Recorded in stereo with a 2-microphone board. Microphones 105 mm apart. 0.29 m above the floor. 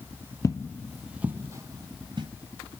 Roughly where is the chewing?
No chewing in this recording.